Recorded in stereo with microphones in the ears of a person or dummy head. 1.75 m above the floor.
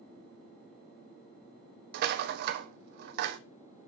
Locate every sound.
1.9 s a rattle: 55° right (ahead or behind), 0.6 m